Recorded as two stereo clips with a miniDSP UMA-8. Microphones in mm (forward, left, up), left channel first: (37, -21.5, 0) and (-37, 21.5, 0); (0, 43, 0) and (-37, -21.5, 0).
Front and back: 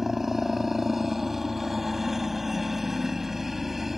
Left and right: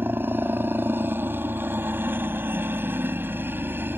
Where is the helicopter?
125° right.